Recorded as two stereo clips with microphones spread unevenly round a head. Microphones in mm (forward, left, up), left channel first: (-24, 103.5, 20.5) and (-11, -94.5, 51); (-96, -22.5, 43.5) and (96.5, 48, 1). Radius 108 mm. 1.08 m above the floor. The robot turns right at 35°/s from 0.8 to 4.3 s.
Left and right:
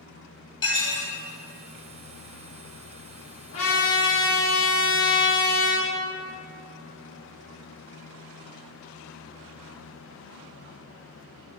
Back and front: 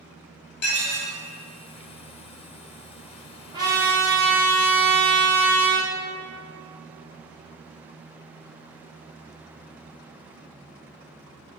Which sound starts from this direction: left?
A trumpet, at 3.5 s.